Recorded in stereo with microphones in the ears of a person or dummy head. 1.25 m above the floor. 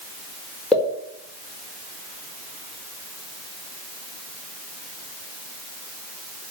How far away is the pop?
About 4.5 m.